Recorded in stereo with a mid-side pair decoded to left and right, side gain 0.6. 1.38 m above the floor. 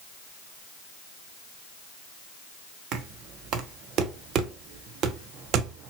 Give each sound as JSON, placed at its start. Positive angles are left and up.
{"t": 2.9, "sound": "knocking", "azimuth_deg": -60, "distance_m": 0.7}